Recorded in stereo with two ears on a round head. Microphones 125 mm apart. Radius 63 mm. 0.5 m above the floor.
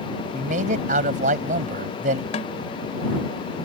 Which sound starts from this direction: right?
A man speaking, at 0.3 s.